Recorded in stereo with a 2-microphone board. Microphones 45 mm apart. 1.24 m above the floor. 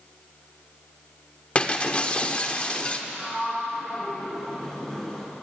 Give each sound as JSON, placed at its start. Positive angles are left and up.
{"t": 1.6, "sound": "breaking glass", "side_deg": 30, "distance_m": 1.4}
{"t": 3.1, "sound": "a sliding door", "side_deg": 15, "distance_m": 6.5}